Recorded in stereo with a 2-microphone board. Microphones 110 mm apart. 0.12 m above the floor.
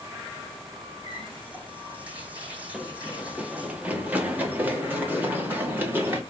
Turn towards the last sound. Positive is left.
turn(degrees=-20)  # may be behind; listen again after turning